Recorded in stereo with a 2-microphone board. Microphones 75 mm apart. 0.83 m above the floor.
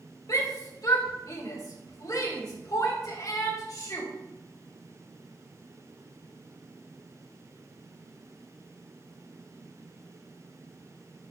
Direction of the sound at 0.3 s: 60° left (ahead or behind).